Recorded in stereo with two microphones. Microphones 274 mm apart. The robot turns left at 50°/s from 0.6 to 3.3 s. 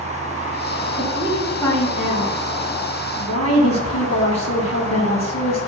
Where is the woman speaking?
155° right, 6 m; by 5.6 s 85° left, 6 m.